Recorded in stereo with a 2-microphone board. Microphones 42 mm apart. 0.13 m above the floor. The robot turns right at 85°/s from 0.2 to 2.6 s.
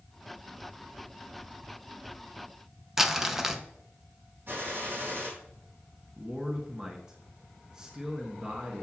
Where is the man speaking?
15° right (ahead or behind), 1.3 m.